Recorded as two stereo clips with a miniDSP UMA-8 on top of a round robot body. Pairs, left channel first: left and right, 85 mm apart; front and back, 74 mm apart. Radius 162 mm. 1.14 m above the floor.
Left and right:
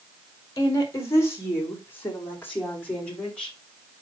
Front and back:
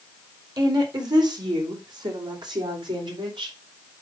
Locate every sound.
0.6 s a woman speaking: 140° left, 2.5 m; by 3.5 s 165° left, 3.5 m